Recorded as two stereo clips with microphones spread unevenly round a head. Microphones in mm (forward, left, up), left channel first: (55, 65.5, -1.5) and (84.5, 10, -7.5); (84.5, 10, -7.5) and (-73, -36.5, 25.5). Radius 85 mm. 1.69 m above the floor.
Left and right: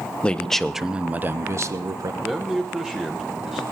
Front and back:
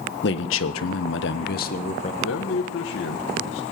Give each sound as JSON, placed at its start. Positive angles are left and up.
{"t": 0.2, "sound": "a man speaking", "azimuth_deg": 50, "distance_m": 1.2}
{"t": 2.2, "sound": "a man speaking", "azimuth_deg": 20, "distance_m": 1.2}